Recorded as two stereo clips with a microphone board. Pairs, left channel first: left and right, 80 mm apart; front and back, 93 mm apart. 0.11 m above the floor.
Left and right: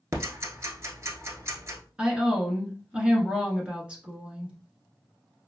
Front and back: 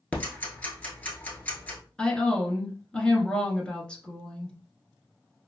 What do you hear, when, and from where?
0.1 s ticking: 60° right, 1.0 m
2.0 s a woman speaking: 55° right, 1.1 m